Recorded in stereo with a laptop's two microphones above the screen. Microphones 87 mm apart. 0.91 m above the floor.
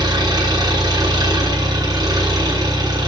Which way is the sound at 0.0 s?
50° right (ahead or behind).